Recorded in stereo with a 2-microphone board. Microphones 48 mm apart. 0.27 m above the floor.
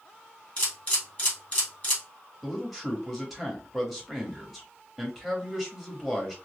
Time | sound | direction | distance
0.6 | a camera shutter | 35° left (ahead or behind) | 2.5 m
2.4 | a man speaking | 5° right (ahead or behind) | 1.2 m